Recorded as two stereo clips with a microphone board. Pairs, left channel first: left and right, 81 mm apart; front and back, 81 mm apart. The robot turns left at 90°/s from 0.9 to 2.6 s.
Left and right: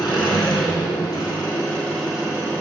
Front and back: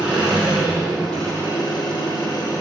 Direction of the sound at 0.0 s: 100° left.